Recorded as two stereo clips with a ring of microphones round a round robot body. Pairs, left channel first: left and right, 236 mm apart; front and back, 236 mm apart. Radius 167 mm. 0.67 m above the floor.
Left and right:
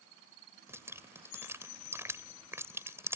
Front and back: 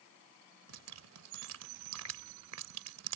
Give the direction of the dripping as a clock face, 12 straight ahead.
6 o'clock.